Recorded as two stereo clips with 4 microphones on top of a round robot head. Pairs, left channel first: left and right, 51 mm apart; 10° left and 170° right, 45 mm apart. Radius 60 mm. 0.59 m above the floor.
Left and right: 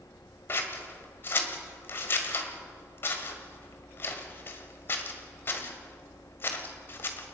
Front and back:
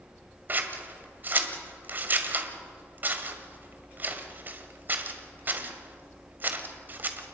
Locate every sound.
0.5 s scissors: 140° left, 1.8 m